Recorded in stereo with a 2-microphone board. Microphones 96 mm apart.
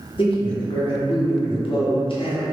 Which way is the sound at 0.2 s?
65° left (ahead or behind).